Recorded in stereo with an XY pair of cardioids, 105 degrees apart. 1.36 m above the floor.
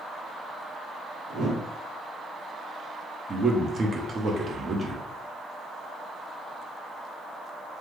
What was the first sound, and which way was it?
A whoosh, 65° right.